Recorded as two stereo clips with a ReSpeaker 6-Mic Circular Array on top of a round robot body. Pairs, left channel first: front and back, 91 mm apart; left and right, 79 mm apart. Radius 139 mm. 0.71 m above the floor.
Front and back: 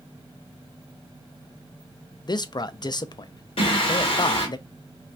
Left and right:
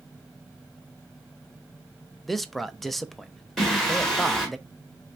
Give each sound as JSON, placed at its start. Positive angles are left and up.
{"t": 2.2, "sound": "a man speaking", "azimuth_deg": 0, "distance_m": 0.6}
{"t": 3.6, "sound": "singing", "azimuth_deg": 5, "distance_m": 2.0}